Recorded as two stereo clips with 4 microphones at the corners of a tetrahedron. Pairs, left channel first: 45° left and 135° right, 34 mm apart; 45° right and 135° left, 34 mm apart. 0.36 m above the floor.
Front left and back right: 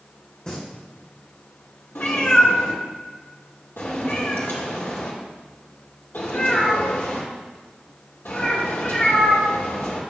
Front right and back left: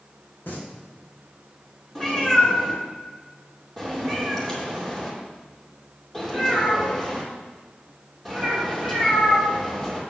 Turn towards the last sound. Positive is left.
turn(degrees=35)